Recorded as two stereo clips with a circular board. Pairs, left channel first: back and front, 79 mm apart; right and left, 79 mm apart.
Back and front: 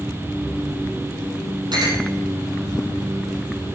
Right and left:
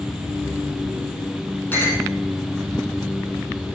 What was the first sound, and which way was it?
A clink, 25° right.